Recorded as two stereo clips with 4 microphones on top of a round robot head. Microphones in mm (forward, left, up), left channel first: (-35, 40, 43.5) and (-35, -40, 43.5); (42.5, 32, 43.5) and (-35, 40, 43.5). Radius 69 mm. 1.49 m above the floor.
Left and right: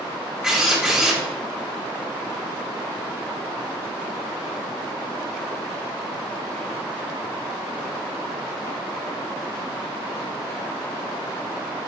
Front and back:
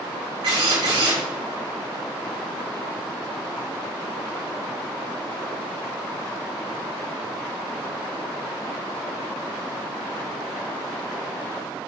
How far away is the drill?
About 6 m.